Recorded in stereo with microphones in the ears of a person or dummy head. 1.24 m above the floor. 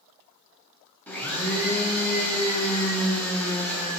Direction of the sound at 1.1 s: 5° left (ahead or behind).